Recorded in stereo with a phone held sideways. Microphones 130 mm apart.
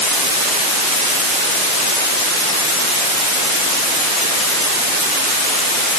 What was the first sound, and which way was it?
Only background noise.